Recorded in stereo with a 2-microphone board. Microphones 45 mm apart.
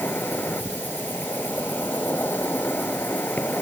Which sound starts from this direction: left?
An insect, at 0.0 s.